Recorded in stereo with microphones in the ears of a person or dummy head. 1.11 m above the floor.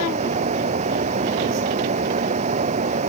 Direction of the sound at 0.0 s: 40° right (ahead or behind).